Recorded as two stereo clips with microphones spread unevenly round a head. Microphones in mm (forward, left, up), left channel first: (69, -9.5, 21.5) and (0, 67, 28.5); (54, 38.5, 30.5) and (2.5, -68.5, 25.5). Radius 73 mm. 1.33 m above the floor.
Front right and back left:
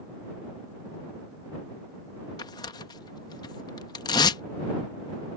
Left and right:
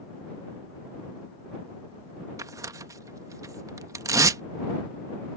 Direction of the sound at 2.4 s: 70° right.